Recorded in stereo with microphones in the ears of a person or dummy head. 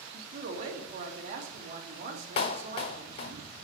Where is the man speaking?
45° right (ahead or behind), 2.5 m.